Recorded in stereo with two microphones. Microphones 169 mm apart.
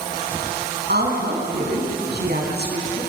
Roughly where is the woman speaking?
Right.